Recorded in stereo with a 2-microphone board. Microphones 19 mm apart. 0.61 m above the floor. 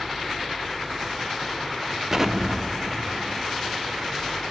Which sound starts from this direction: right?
An explosion, at 2.1 s.